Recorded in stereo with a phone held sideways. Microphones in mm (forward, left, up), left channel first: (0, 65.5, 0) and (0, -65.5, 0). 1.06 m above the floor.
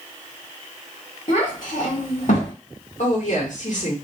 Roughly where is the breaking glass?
No breaking glass in this recording.